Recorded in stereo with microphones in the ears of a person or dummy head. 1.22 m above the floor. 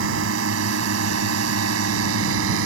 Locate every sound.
0.0 s a drone: 75° right (ahead or behind); by 2.7 s 65° right (ahead or behind)